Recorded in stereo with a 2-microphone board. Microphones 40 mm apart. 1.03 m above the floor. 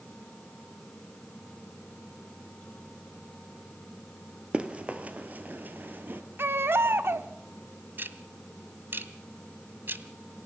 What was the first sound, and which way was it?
Running footsteps, 25° right (ahead or behind).